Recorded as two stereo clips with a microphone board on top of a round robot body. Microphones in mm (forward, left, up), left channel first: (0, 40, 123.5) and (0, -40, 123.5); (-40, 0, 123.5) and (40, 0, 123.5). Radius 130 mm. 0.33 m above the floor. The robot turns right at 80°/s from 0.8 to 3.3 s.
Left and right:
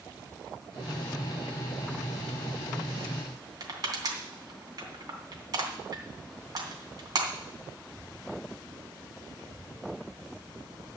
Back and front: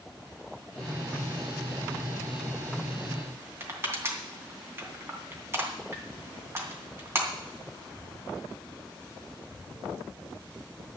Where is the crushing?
55° right, 3 m.